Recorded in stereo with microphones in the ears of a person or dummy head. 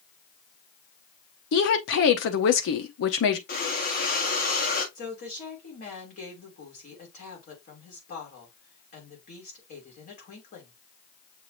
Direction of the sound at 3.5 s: 40° left (ahead or behind).